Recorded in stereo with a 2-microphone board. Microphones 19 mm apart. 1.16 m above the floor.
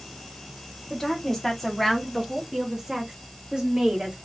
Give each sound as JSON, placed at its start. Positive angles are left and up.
{"t": 0.9, "sound": "a woman speaking", "side_deg": 20, "distance_m": 1.5}